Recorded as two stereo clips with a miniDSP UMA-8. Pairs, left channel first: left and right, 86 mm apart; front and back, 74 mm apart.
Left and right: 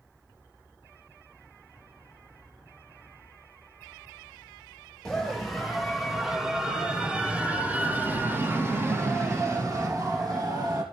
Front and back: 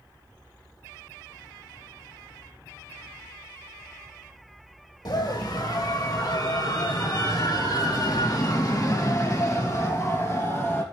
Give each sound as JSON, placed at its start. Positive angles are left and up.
{"t": 5.0, "sound": "a scream", "azimuth_deg": 5, "distance_m": 4.5}